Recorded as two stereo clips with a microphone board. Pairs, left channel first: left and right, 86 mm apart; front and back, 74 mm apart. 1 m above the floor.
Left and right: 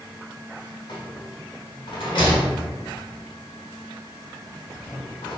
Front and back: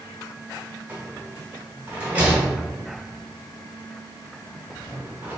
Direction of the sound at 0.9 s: 110° left.